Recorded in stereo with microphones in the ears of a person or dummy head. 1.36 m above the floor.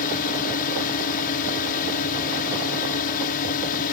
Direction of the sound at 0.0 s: 45° left (ahead or behind).